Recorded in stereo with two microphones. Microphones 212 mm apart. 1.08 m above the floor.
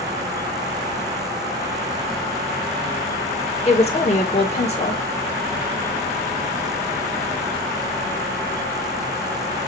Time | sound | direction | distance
3.6 | a woman speaking | 30° left (ahead or behind) | 1.7 m